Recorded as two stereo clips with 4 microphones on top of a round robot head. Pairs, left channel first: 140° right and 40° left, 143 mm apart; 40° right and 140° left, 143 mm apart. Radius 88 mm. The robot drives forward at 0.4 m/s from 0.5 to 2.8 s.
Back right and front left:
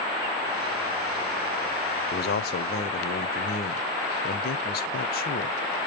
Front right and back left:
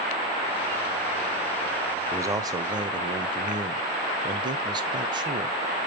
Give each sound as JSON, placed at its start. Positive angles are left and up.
{"t": 2.1, "sound": "a man speaking", "azimuth_deg": -150, "distance_m": 0.5}